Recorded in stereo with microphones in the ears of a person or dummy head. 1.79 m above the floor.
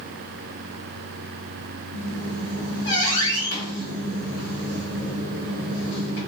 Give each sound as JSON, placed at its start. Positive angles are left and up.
{"t": 1.9, "sound": "a squeak", "side_deg": 60, "distance_m": 1.3}